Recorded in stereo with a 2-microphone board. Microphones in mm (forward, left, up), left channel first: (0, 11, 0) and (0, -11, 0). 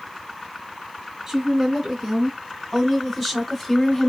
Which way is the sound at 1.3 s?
15° right (ahead or behind).